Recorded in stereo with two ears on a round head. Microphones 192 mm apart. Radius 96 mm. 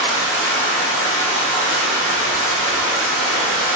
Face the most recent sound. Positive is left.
turn(degrees=-10)  # may be behind; listen again after turning